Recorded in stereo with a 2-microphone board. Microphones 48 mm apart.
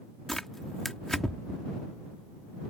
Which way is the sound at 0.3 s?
5° left (ahead or behind).